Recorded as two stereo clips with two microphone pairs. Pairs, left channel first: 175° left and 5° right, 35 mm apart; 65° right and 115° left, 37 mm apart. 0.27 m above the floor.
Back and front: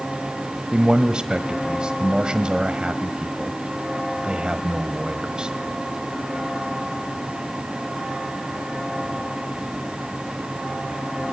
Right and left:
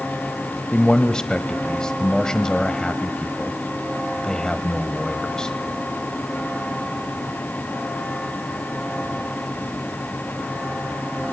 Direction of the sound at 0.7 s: 25° right.